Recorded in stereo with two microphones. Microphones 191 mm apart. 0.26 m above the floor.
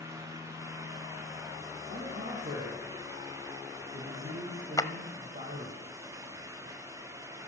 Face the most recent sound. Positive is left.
turn(degrees=20)  # may be behind; listen again after turning